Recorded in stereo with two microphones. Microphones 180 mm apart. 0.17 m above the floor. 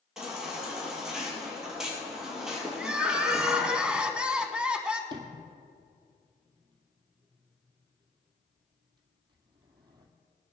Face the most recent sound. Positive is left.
turn(degrees=-25)  # may be behind; listen again after turning